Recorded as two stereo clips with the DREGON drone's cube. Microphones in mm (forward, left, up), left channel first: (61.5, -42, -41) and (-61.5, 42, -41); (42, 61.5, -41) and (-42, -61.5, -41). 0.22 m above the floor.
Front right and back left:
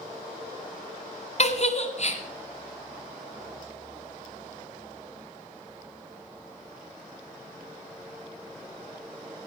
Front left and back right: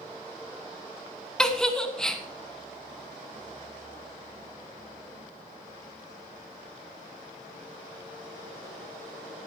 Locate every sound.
1.4 s a giggle: 30° right, 1.1 m